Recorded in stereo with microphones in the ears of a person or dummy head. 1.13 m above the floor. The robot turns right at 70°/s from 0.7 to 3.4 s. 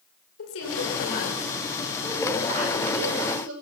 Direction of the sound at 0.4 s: 90° left.